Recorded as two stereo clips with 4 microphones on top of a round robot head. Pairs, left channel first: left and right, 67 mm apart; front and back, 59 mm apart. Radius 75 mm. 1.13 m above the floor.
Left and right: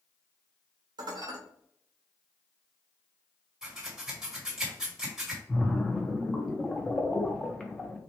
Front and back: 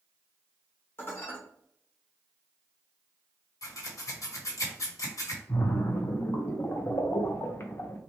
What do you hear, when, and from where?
1.0 s dishes clattering: 60° right, 1.3 m
3.6 s scissors: 10° right, 1.8 m
5.5 s a splash: 15° left, 1.1 m